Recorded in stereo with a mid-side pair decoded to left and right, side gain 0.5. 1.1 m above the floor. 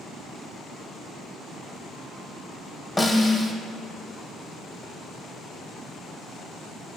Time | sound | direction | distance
3.0 | a snare drum | 20° left | 0.9 m